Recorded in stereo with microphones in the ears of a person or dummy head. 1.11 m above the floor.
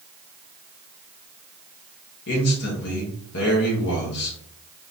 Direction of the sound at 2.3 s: 60° left (ahead or behind).